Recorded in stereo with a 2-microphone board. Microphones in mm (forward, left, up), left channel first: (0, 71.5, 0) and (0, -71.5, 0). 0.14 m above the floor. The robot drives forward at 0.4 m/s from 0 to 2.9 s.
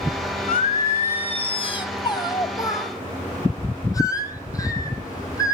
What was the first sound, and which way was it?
Singing, 65° left (ahead or behind).